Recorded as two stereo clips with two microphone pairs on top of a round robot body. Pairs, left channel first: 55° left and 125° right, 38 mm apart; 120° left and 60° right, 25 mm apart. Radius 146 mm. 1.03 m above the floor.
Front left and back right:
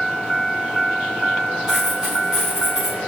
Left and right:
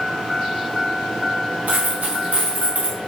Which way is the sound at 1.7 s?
55° right.